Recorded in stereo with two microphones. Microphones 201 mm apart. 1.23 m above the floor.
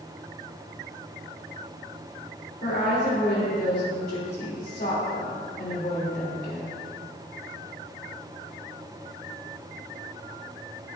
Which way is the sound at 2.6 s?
55° left (ahead or behind).